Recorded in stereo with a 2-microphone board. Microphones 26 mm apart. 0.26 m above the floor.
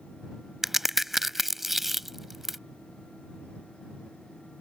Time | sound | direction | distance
0.6 | a crack | 10° right (ahead or behind) | ?